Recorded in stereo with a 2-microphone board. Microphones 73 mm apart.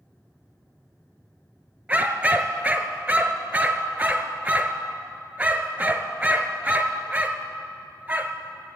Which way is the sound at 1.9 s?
20° right (ahead or behind).